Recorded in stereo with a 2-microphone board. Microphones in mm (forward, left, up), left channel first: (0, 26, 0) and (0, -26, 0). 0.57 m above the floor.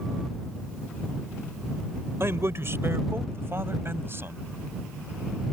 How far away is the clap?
I don't hear a clap.